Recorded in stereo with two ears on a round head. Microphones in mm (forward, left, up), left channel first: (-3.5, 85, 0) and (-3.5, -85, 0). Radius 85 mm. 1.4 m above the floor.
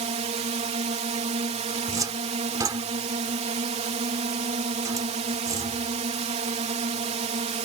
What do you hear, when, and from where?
0.0 s a drone: 35° right (ahead or behind)
1.8 s a cupboard door: 20° right (ahead or behind)